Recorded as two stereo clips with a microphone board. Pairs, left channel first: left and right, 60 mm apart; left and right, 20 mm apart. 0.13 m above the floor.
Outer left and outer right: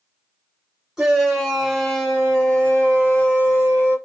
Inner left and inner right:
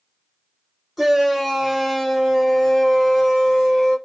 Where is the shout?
10° right (ahead or behind), 1.5 m; by 4.0 s 40° left (ahead or behind), 1.7 m.